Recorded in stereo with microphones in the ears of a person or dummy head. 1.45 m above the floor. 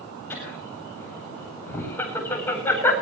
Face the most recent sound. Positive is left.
turn(degrees=15)  # may be behind; listen again after turning